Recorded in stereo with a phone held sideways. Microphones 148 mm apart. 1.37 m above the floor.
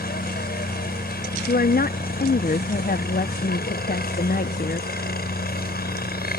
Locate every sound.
0.0 s a helicopter: 75° left (ahead or behind)
1.5 s a woman speaking: 70° left (ahead or behind)